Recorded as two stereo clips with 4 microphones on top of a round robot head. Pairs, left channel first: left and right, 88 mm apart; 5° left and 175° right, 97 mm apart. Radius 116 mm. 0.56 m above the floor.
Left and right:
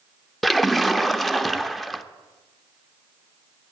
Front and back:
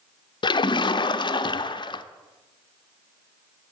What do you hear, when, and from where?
0.4 s a splash: straight ahead, 0.6 m